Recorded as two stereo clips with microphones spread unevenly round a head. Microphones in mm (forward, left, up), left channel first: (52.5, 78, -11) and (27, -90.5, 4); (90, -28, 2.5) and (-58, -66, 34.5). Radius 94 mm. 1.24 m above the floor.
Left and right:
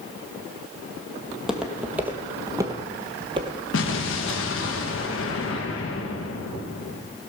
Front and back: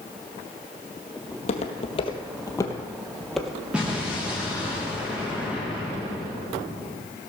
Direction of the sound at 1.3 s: 15° right.